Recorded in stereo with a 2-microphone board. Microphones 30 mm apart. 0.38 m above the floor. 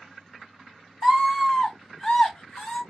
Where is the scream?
5° left (ahead or behind), 1.3 m; by 2.8 s 35° left (ahead or behind), 1.6 m.